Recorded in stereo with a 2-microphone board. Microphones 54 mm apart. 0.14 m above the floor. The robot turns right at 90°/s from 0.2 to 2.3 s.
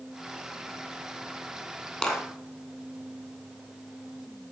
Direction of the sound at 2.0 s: 15° left (ahead or behind).